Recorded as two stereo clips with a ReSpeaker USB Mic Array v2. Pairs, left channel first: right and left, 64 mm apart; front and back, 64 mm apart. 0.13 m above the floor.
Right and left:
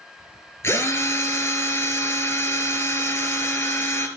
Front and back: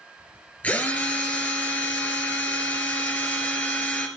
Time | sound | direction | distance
0.6 | a drill | 60° right | 1.6 m